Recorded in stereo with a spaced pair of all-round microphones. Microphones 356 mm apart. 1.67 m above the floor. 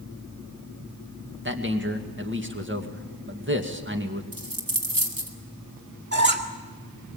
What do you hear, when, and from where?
1.4 s a man speaking: 30° right (ahead or behind), 2 m
4.3 s a dropped coin: 65° right (ahead or behind), 2.5 m
6.1 s a squeak: 30° right (ahead or behind), 2.0 m